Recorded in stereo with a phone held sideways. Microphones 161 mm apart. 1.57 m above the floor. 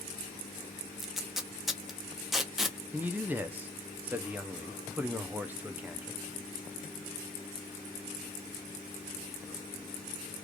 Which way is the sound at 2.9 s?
10° right (ahead or behind).